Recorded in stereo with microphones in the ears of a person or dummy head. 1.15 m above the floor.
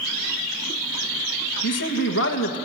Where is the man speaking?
65° left (ahead or behind), 1.3 m.